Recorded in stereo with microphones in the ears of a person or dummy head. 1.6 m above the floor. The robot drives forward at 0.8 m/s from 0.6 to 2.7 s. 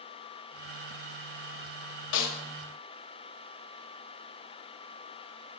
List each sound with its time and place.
2.1 s a snare drum: 65° left (ahead or behind), 1.3 m; by 2.4 s 75° left (ahead or behind), 1.2 m